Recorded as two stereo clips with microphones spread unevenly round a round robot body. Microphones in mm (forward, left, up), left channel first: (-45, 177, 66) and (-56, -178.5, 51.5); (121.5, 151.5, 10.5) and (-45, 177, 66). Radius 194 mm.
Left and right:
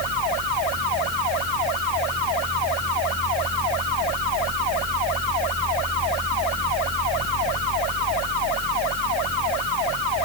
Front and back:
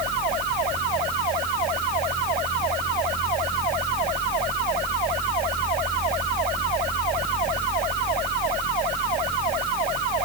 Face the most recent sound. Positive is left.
No sound to turn to.